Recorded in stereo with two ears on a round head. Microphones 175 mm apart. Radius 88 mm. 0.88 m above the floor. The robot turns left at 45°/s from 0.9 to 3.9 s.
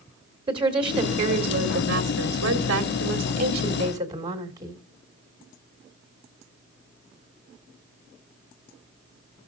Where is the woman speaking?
25° right, 2 m; by 4.8 s 160° right, 2 m.